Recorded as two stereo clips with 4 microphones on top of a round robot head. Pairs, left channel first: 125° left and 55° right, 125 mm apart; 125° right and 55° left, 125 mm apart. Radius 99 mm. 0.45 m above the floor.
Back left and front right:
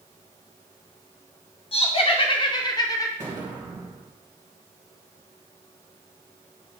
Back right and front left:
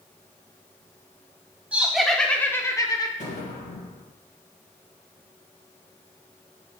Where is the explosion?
115° right, 2.5 m.